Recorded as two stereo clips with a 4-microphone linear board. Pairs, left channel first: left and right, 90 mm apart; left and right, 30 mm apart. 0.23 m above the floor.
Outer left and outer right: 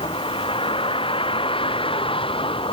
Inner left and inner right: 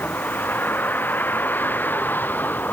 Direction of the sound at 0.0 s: 85° left.